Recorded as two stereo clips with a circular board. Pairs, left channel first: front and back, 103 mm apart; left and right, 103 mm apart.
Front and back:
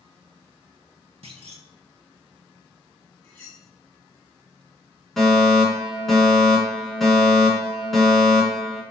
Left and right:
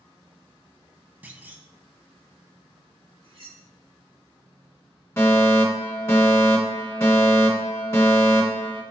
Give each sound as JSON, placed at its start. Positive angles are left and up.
{"t": 1.2, "sound": "a clunk", "azimuth_deg": -165, "distance_m": 0.5}
{"t": 3.2, "sound": "cutlery clinking", "azimuth_deg": -75, "distance_m": 2.0}
{"t": 5.2, "sound": "a fire alarm", "azimuth_deg": 85, "distance_m": 1.8}